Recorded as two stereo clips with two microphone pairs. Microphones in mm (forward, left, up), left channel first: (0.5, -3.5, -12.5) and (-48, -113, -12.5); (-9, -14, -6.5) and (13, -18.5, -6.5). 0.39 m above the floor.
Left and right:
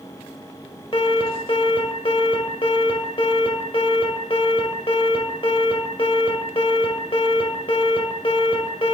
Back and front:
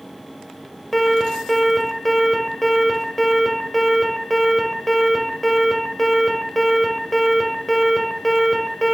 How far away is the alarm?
About 1.0 m.